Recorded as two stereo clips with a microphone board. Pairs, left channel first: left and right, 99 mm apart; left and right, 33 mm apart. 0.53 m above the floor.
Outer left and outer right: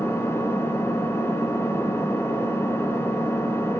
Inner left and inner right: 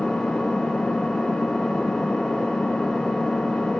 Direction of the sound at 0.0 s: 25° left (ahead or behind).